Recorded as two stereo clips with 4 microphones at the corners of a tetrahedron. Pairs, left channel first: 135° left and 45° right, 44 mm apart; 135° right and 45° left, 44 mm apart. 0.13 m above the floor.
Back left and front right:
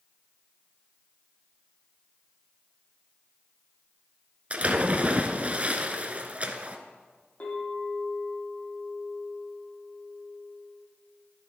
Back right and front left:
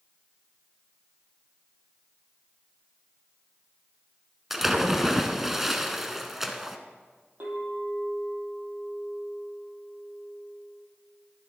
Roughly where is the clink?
Left.